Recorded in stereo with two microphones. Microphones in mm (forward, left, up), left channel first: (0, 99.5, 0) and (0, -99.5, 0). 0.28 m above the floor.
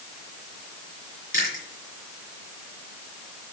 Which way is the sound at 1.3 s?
45° left (ahead or behind).